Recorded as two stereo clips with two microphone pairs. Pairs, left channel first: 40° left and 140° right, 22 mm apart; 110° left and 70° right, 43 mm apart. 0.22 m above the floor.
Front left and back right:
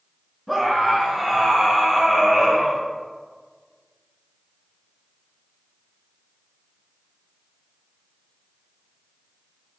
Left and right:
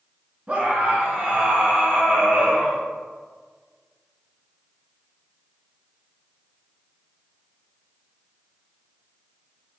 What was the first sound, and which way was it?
A scream, 70° right.